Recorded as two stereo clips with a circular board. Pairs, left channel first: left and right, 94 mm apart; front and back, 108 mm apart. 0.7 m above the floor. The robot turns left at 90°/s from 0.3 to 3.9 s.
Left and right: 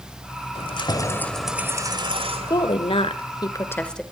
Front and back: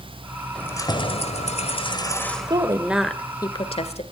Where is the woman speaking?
135° left, 2 m; by 4.0 s 10° left, 2 m.